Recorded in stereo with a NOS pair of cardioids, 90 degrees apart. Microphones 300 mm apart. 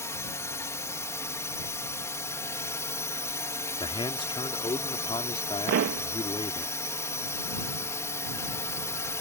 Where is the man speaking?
15° left.